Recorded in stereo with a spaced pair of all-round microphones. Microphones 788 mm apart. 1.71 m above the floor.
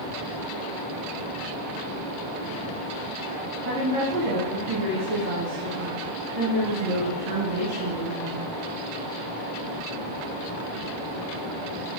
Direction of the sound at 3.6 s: 60° right (ahead or behind).